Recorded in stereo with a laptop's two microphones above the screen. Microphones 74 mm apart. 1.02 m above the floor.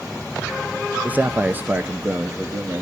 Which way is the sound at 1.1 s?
20° right (ahead or behind).